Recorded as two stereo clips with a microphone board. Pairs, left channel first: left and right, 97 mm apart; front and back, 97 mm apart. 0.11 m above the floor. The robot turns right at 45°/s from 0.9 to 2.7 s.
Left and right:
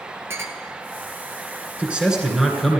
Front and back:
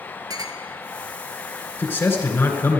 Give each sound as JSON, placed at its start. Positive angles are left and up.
{"t": 0.3, "sound": "a clink", "azimuth_deg": -145, "distance_m": 1.6}
{"t": 1.8, "sound": "a man speaking", "azimuth_deg": -35, "distance_m": 1.8}